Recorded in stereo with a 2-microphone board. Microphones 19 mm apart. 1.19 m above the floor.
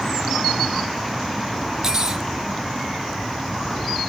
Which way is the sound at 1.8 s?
25° right (ahead or behind).